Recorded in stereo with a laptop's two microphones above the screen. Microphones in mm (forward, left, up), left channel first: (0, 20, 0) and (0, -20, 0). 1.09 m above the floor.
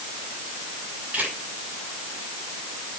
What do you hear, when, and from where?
1.1 s a camera shutter: 40° right (ahead or behind), 8 m